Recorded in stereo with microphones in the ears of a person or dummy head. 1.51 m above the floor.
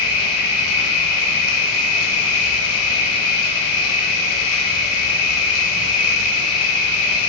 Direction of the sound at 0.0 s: 80° left.